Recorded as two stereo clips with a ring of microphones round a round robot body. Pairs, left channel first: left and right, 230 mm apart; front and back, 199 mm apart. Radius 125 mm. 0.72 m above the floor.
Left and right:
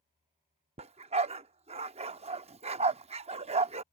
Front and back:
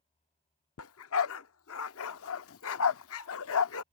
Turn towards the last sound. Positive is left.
turn(degrees=-25)